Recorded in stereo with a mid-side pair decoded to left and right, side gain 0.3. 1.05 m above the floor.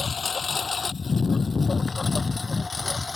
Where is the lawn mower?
50° left; by 3.2 s 35° left.